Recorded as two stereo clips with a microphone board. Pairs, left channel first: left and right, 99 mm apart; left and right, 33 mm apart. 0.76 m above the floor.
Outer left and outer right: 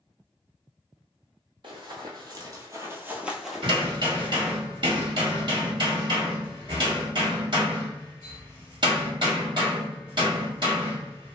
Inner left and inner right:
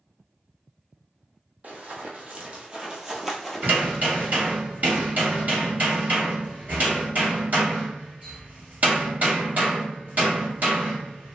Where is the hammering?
55° right (ahead or behind), 1.6 m.